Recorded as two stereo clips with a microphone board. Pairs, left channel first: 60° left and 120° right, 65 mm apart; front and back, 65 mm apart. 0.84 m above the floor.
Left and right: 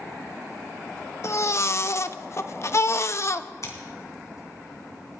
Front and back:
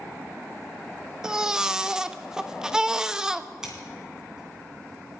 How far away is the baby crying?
About 0.5 m.